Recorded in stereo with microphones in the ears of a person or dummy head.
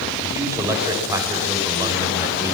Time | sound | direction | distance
0.2 | a man speaking | 15° right (ahead or behind) | 5.5 m